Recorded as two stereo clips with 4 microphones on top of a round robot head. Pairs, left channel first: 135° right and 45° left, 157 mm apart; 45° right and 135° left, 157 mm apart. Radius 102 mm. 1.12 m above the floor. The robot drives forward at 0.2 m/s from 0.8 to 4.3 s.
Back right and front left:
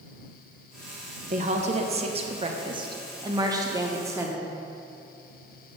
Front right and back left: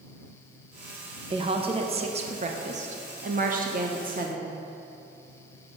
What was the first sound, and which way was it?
A woman speaking, 80° left.